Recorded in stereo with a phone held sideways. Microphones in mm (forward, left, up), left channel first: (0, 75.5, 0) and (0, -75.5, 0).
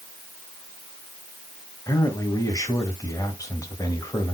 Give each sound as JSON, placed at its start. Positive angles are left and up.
{"t": 1.9, "sound": "a man speaking", "side_deg": 20, "distance_m": 1.7}